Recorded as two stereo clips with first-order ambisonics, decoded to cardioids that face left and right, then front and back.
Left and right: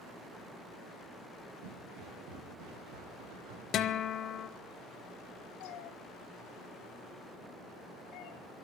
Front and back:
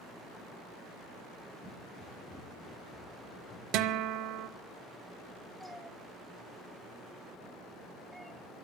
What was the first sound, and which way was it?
Footsteps, 85° right.